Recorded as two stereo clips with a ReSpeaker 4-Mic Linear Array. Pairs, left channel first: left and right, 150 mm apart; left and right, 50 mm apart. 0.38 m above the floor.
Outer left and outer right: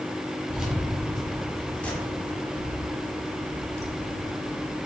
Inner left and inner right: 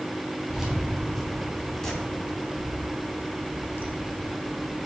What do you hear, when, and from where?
0.5 s keys jangling: 5° right (ahead or behind), 2.5 m; by 4.8 s 60° left (ahead or behind), 1.5 m